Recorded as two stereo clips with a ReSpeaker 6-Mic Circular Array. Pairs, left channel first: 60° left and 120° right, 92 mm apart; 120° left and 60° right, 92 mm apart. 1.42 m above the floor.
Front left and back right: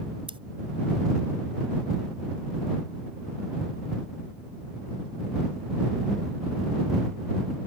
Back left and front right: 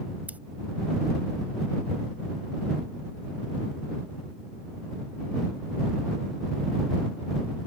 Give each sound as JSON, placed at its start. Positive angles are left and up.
{"t": 0.3, "sound": "scissors", "azimuth_deg": -135}